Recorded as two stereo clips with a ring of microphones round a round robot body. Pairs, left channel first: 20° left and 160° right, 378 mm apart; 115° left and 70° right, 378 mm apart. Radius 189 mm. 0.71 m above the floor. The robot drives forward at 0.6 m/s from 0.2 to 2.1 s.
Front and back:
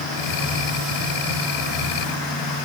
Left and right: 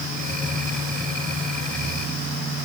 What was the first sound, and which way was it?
Only background noise.